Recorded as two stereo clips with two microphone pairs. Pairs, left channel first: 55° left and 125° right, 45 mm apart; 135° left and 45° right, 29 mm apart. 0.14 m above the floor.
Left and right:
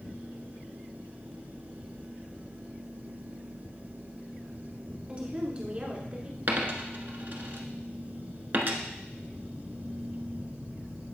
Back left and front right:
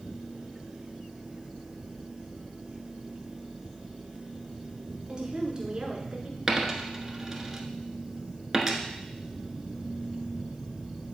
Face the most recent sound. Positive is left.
turn(degrees=-110)